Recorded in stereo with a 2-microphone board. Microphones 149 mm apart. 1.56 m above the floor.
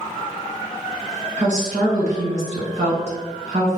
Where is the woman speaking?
50° right (ahead or behind), 1.9 m.